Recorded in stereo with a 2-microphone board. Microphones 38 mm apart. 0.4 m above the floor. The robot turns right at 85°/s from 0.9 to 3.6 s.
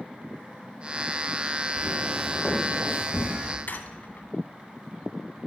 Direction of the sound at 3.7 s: 55° left (ahead or behind).